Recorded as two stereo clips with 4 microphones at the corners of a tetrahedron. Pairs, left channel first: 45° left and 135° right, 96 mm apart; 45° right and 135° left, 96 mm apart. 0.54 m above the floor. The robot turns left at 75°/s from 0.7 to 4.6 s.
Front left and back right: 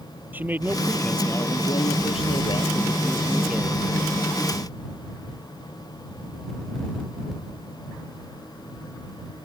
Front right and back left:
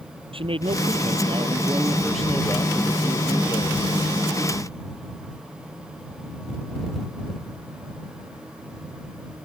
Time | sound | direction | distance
0.3 | a man speaking | 155° left | ?